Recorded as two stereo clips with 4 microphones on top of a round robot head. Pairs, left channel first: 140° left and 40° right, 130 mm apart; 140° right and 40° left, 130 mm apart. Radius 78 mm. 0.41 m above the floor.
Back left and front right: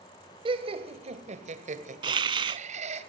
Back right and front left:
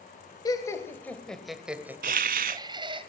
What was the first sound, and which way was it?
Laughter, 85° right.